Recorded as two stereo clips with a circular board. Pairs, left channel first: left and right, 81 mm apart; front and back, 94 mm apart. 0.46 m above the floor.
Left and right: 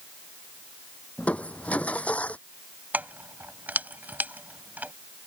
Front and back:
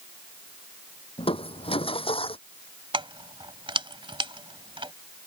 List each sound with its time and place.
1.2 s crushing: 15° left
2.9 s keys jangling: 160° right